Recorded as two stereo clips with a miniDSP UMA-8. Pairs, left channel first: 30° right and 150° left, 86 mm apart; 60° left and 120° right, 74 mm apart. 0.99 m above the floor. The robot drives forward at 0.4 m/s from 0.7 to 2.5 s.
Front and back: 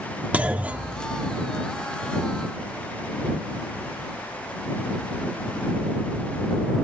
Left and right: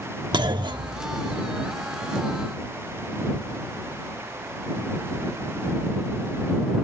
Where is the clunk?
135° right, 1.0 m; by 1.5 s 150° right, 1.2 m.